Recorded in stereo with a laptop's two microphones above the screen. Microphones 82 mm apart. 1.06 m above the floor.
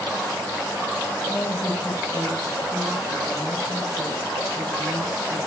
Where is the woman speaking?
35° left (ahead or behind), 3 m.